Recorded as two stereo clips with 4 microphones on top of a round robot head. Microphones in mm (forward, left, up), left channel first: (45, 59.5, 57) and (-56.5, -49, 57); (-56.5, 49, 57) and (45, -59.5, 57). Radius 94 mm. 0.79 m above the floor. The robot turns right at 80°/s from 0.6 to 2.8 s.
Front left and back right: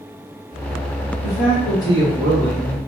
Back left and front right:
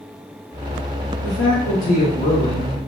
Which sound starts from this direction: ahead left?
A man speaking, at 1.2 s.